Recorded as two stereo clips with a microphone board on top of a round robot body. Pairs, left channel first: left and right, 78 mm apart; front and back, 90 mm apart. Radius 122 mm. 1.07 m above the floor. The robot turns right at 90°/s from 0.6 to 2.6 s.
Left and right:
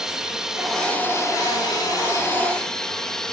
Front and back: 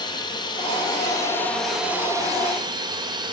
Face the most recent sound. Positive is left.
turn(degrees=170)